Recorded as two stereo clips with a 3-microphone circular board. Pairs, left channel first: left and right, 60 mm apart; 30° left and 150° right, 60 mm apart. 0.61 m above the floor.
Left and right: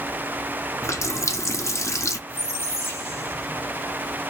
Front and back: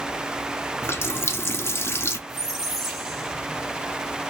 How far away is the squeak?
About 1.0 m.